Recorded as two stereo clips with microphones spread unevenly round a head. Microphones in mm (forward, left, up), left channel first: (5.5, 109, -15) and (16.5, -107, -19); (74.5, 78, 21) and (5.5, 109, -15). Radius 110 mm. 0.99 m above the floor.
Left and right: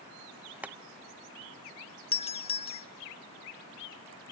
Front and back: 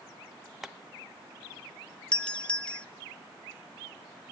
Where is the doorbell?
100° left, 0.7 m.